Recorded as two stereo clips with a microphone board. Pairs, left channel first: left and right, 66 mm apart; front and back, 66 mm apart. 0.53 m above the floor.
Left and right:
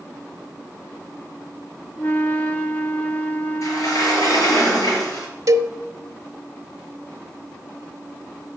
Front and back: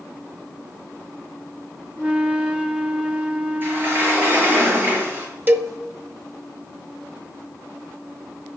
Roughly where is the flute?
Behind left.